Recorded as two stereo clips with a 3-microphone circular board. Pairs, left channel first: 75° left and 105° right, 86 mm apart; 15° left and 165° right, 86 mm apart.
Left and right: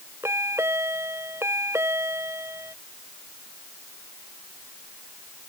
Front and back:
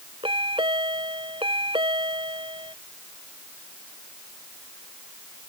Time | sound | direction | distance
0.2 | a chime | 165° right | ?